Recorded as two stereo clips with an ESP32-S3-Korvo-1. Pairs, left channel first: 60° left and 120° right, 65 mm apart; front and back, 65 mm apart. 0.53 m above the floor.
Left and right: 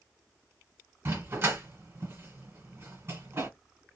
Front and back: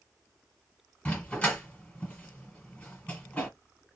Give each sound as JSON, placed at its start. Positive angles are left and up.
{"t": 1.1, "sound": "a dog barking", "azimuth_deg": -70, "distance_m": 1.4}